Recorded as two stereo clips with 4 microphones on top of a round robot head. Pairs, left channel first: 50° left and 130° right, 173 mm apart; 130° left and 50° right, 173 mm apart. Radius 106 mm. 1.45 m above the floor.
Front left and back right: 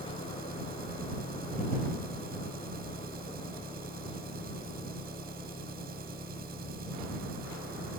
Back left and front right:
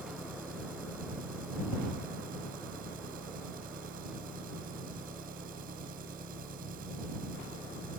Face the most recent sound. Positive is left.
turn(degrees=-95)